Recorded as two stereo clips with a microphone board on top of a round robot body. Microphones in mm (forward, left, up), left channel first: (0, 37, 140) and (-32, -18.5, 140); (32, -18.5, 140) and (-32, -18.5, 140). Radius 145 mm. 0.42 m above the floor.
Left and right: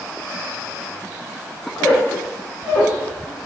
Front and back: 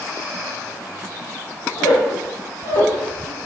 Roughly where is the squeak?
Ahead.